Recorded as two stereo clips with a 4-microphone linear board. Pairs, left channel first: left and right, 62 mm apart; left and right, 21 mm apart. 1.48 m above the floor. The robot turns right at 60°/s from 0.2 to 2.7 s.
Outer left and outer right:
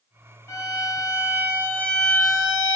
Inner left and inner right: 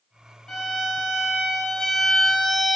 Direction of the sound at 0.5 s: 80° left.